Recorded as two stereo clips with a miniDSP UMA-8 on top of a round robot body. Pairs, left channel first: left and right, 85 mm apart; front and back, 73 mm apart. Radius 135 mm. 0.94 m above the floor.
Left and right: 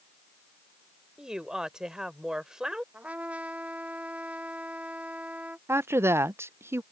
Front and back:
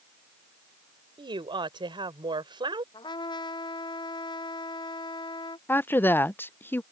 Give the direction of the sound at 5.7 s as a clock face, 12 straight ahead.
2 o'clock.